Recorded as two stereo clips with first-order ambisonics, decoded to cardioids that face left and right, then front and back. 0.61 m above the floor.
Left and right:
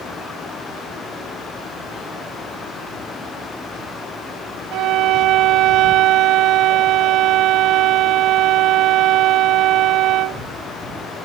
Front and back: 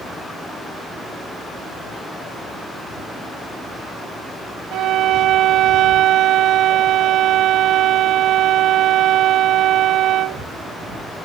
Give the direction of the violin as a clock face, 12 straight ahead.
4 o'clock.